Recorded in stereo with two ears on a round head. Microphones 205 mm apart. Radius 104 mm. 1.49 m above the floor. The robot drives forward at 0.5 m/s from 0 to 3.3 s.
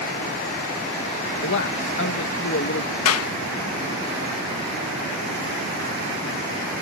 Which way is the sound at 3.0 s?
70° left (ahead or behind).